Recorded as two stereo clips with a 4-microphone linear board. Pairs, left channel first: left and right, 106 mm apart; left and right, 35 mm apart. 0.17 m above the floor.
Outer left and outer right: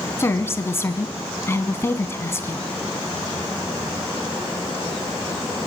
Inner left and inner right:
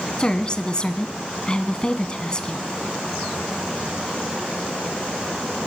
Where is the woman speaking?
25° left (ahead or behind), 1.2 m.